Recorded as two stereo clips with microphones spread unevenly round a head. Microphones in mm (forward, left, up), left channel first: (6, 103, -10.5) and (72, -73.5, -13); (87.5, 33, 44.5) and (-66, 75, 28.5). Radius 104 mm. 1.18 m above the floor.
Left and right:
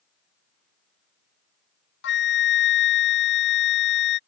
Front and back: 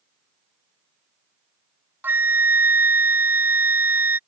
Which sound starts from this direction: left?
A flute, at 2.0 s.